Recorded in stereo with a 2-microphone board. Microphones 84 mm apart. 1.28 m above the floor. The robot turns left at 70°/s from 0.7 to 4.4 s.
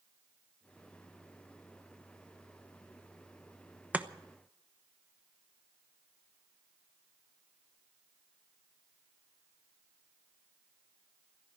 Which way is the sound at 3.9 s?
20° right (ahead or behind).